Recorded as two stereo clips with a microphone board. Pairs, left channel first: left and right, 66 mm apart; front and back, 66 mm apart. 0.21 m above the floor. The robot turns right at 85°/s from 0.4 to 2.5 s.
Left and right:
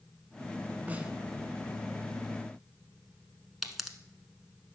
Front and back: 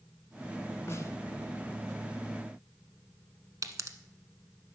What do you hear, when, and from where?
0.9 s a snare drum: 35° right, 1.1 m; by 1.1 s 15° right, 1.1 m
3.6 s a pop: 175° right, 1.0 m